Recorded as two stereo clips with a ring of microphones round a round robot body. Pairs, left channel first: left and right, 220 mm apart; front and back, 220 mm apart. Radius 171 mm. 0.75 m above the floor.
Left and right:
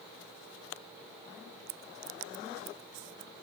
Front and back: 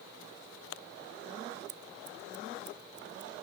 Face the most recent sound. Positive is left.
turn(degrees=-130)